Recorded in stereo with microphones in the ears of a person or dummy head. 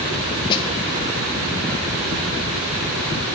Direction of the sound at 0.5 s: 25° left (ahead or behind).